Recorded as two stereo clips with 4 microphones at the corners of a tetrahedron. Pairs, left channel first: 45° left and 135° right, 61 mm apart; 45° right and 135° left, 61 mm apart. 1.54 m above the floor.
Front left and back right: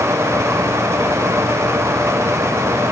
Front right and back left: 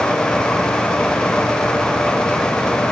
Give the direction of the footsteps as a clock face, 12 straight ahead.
No footsteps in this recording.